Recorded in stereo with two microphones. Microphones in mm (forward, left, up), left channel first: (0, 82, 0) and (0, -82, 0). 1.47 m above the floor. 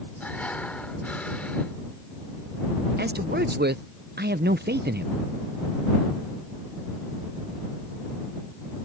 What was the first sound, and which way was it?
Breathing, 10° left (ahead or behind).